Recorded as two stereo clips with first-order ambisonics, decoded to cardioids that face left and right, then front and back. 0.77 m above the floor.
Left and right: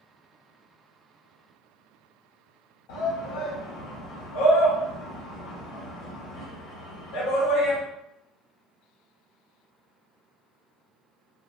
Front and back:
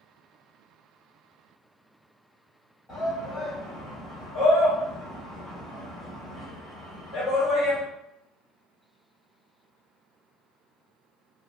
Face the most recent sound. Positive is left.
turn(degrees=90)